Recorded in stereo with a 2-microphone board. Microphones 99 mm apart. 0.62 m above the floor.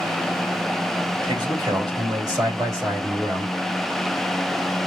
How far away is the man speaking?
About 3.5 m.